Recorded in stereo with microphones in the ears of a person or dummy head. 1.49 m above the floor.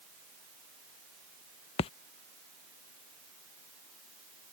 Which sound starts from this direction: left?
A splash, at 1.8 s.